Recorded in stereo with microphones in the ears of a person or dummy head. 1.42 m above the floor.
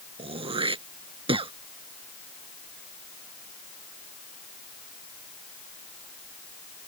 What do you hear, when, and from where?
0.2 s throat clearing: 30° right (ahead or behind)